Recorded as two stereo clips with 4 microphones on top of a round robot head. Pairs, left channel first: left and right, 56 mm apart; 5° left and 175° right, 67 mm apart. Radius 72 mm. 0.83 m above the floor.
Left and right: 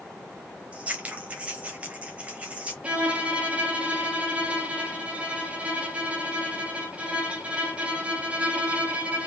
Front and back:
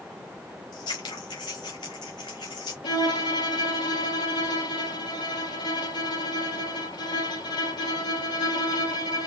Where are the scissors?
30° right, 0.7 m.